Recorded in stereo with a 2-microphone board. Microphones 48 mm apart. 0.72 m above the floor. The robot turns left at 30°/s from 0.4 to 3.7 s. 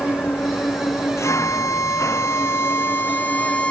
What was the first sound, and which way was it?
An engine running, 130° left.